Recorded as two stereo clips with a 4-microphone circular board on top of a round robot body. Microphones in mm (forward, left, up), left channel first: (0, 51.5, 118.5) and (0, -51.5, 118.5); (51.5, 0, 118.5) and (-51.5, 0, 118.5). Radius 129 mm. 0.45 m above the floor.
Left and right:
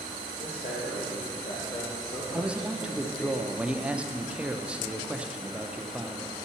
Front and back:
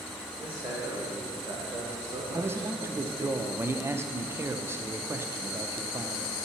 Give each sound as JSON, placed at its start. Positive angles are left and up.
{"t": 0.4, "sound": "a man speaking", "azimuth_deg": 110, "distance_m": 2.0}
{"t": 2.3, "sound": "a man speaking", "azimuth_deg": -155, "distance_m": 0.7}